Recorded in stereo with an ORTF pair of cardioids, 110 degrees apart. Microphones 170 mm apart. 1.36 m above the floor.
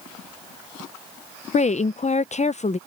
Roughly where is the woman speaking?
Ahead left.